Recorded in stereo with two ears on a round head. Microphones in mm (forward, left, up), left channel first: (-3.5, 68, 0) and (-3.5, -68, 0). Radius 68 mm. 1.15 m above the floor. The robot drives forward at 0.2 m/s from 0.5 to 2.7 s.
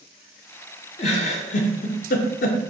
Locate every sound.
1.0 s a giggle: 40° left (ahead or behind), 0.7 m; by 2.6 s 60° left (ahead or behind), 0.5 m